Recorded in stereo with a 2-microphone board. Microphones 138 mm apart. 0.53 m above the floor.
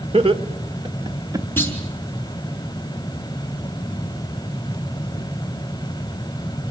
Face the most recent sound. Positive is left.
turn(degrees=15)  # may be behind; listen again after turning